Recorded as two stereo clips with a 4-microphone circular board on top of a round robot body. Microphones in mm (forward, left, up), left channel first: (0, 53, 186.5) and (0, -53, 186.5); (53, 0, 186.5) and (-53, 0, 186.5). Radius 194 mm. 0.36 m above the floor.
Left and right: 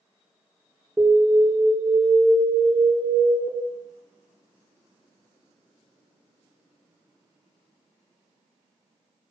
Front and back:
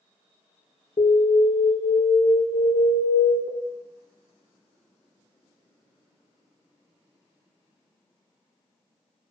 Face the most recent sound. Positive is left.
turn(degrees=-10)